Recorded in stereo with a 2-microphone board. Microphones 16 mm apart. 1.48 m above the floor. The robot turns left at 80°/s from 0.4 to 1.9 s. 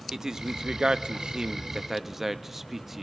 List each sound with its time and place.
0.1 s a man speaking: 35° right (ahead or behind), 0.6 m; by 3.0 s 20° right (ahead or behind), 0.6 m